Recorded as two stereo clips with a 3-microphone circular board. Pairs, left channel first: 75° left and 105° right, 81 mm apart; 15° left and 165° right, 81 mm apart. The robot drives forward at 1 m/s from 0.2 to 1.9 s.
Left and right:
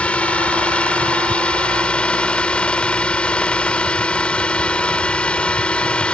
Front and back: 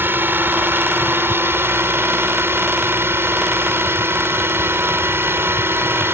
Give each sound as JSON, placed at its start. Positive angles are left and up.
{"t": 0.0, "sound": "a drone", "azimuth_deg": 145}